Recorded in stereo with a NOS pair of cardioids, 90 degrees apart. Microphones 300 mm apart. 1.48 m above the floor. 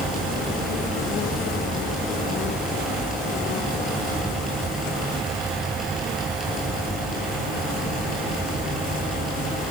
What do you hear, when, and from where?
0.0 s a fan: straight ahead, 8 m